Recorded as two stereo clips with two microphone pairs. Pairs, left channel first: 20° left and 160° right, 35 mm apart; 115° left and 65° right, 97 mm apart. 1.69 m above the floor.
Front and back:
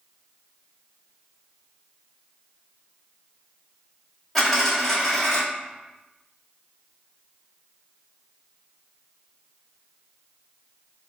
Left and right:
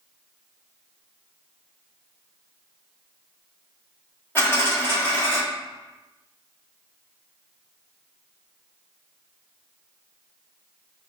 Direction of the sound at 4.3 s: 80° left.